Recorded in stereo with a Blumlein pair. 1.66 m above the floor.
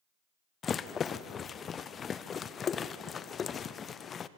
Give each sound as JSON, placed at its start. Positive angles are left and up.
{"t": 0.6, "sound": "a rattle", "azimuth_deg": 20, "distance_m": 0.7}